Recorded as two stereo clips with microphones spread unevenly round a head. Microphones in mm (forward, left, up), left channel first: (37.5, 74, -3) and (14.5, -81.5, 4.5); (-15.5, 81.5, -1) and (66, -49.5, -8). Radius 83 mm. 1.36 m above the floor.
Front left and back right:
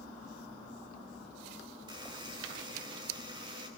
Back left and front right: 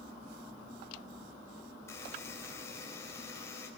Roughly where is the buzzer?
Behind.